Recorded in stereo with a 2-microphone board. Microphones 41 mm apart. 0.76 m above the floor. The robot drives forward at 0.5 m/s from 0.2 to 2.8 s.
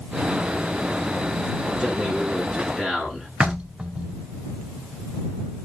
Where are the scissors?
No scissors in this recording.